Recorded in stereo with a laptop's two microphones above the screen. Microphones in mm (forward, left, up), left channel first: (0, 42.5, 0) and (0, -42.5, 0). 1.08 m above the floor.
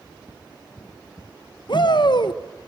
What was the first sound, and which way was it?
A shout, 60° left (ahead or behind).